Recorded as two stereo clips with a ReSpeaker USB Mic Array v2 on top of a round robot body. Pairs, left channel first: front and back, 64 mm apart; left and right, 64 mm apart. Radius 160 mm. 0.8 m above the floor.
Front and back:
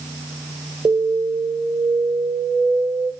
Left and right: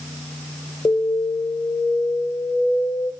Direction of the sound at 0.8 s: 140° left.